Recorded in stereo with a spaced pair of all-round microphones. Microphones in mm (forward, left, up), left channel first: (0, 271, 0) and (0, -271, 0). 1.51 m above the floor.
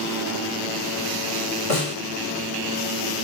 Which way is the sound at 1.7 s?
80° left.